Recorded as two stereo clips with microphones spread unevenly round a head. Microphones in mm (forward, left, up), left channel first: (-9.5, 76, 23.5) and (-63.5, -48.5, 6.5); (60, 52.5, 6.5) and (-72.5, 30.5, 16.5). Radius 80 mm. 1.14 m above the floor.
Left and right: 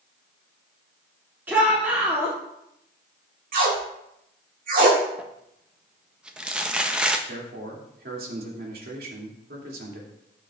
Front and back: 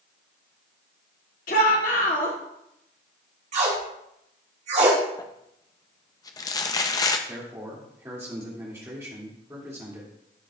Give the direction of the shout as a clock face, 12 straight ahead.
1 o'clock.